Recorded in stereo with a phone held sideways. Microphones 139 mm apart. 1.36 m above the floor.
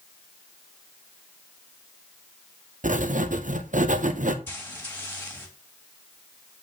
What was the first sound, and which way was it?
Writing, 70° right (ahead or behind).